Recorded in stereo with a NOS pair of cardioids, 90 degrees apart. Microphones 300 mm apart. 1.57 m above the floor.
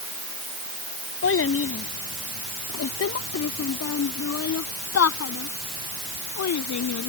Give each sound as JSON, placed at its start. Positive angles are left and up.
{"t": 1.2, "sound": "a child speaking", "azimuth_deg": 40}